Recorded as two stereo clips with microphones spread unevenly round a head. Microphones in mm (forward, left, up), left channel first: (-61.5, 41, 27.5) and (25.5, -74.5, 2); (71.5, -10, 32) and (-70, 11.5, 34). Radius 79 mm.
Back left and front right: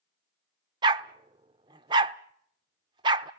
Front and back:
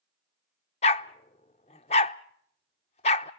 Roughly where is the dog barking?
Ahead.